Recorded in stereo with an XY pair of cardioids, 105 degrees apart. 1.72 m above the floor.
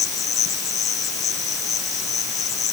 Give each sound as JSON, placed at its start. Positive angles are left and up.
{"t": 0.0, "sound": "an insect", "azimuth_deg": 65}